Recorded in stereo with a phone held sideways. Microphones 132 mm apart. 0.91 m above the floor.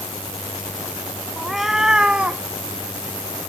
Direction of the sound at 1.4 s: Centre (ahead or behind).